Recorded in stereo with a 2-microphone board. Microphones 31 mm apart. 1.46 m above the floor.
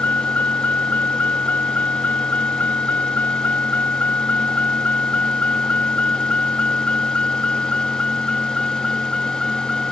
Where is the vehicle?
75° left (ahead or behind); by 9.9 s 30° left (ahead or behind).